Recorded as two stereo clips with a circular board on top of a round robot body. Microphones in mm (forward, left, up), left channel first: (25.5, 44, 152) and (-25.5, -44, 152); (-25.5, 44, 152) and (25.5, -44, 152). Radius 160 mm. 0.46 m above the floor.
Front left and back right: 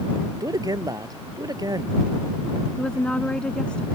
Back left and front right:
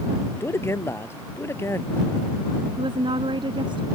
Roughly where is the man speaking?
Behind.